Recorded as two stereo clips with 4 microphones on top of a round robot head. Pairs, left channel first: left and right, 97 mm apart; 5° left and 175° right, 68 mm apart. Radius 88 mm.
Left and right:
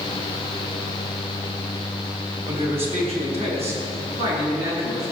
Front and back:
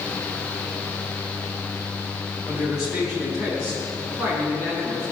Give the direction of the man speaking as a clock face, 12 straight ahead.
3 o'clock.